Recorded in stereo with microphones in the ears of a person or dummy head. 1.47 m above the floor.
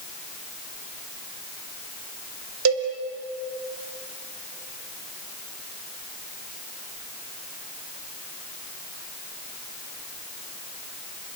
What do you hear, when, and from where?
2.6 s a cowbell: 85° right, 4 m